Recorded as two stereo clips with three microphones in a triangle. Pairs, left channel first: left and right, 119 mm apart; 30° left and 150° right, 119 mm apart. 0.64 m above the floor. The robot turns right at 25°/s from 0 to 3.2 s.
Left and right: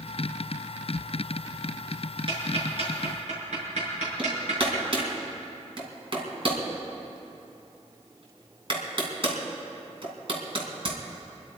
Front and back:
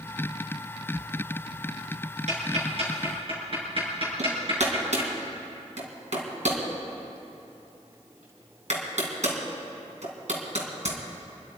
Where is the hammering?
135° right, 2.5 m.